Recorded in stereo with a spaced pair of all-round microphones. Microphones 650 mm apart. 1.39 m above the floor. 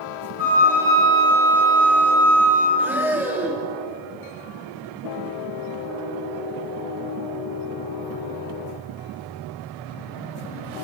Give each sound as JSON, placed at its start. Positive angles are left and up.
{"t": 0.4, "sound": "a flute", "side_deg": -30, "distance_m": 3.0}
{"t": 2.8, "sound": "breathing", "side_deg": -5, "distance_m": 0.9}